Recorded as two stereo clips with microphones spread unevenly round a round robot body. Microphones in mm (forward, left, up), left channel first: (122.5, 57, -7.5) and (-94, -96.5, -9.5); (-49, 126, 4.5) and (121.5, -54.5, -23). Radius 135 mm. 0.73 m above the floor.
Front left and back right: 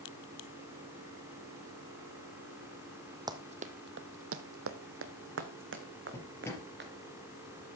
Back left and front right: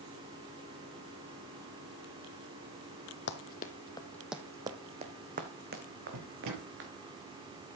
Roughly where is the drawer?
Ahead right.